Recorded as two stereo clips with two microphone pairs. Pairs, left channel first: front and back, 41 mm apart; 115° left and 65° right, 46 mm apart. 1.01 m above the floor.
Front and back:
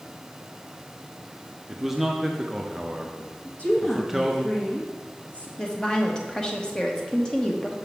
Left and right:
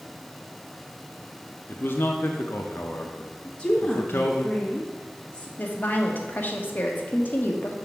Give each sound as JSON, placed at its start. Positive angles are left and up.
{"t": 1.7, "sound": "a man speaking", "azimuth_deg": 100, "distance_m": 0.6}
{"t": 3.5, "sound": "a woman speaking", "azimuth_deg": 50, "distance_m": 1.4}
{"t": 5.6, "sound": "a woman speaking", "azimuth_deg": 70, "distance_m": 1.0}